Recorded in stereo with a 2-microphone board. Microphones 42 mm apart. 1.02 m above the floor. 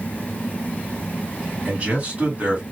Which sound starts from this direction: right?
A man speaking, at 1.6 s.